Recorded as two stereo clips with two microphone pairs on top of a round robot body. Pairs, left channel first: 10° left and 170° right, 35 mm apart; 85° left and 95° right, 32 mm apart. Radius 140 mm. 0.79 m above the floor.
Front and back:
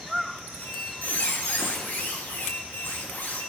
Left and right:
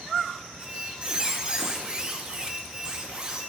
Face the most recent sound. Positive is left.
turn(degrees=-30)